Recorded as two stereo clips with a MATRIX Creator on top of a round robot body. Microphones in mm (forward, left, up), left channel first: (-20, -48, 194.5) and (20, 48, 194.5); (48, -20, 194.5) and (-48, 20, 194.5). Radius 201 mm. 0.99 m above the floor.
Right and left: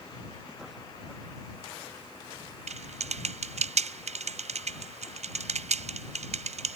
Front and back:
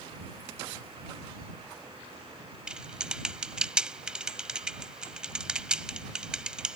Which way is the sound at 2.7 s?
75° left.